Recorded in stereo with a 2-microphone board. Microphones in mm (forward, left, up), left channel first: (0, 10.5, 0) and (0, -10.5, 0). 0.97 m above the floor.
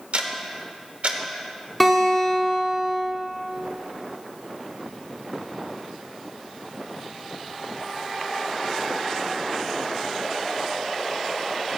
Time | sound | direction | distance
0.1 | ticking | 70° right (ahead or behind) | 1.2 m
1.8 | a guitar | 5° left (ahead or behind) | 3 m